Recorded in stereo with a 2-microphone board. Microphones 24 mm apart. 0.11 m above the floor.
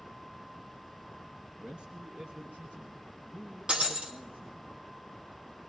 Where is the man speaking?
45° right (ahead or behind), 1.5 m; by 4.7 s 65° right (ahead or behind), 4 m.